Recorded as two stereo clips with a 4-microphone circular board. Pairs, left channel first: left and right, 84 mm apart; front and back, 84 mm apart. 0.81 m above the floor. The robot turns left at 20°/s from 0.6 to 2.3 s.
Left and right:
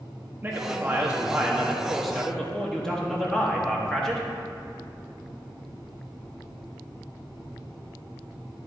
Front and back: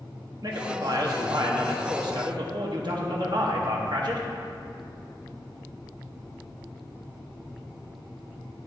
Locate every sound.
0.4 s a man speaking: 150° right, 1.1 m; by 4.3 s 175° left, 1.1 m